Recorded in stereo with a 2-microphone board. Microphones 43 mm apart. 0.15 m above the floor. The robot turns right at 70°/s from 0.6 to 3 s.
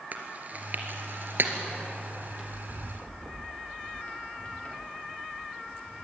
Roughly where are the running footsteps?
Right.